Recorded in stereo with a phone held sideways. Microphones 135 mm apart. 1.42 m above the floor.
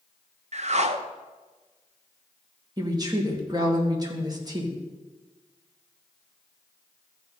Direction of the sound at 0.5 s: 50° right (ahead or behind).